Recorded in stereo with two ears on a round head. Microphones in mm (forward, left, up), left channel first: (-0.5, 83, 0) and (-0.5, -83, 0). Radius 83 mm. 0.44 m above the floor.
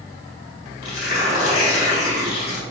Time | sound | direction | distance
0.8 | tearing paper | 50° left (ahead or behind) | 2.0 m